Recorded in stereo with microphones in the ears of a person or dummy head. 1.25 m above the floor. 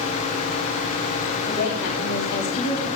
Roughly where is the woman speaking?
Left.